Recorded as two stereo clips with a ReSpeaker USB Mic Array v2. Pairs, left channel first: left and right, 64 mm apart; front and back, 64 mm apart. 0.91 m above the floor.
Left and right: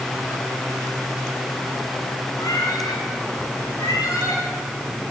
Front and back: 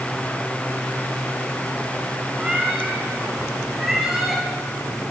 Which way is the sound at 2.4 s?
105° left.